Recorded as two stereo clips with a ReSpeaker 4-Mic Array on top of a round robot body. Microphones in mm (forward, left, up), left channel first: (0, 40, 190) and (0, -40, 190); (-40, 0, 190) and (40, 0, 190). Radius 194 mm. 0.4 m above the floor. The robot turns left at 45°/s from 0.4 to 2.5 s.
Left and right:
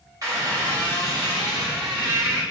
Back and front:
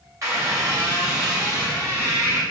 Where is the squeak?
50° right, 1.9 m; by 2.4 s 140° right, 1.9 m.